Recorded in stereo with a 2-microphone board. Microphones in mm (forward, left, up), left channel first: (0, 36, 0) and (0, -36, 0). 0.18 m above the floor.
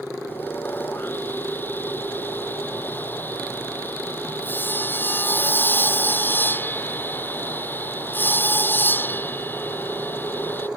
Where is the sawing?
30° left (ahead or behind).